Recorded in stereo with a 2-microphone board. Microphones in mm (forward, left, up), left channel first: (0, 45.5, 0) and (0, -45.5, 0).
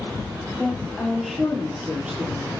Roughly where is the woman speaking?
Centre.